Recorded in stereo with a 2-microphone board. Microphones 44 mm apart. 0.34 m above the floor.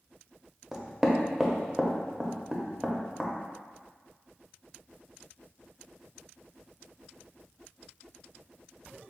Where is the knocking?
10° right (ahead or behind), 0.6 m.